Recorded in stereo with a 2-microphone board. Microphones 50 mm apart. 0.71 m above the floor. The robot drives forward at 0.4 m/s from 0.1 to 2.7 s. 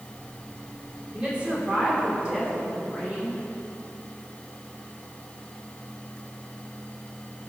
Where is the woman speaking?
25° right (ahead or behind), 2 m; by 3.4 s 20° right (ahead or behind), 2.5 m.